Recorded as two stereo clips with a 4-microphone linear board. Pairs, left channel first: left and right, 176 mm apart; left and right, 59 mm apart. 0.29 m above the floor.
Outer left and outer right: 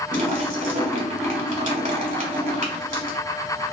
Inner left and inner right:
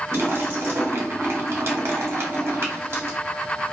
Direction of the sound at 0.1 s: 50° right (ahead or behind).